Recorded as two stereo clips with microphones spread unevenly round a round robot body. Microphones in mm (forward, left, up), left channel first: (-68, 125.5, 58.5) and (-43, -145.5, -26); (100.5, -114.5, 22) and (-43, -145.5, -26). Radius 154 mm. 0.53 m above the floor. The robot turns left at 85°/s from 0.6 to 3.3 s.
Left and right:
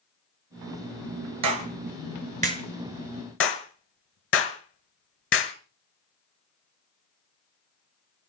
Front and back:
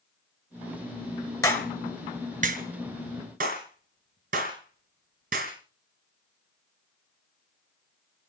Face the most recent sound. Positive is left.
turn(degrees=145)